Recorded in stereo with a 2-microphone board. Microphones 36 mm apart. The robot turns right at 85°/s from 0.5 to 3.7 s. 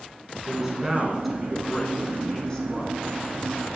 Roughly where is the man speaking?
Centre.